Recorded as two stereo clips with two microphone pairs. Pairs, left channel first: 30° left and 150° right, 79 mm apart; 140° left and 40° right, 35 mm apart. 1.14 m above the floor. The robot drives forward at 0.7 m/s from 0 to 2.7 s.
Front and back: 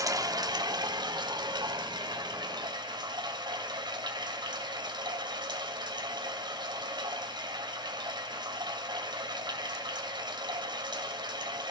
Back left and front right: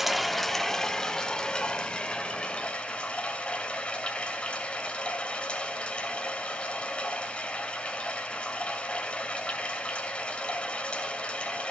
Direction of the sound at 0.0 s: 125° right.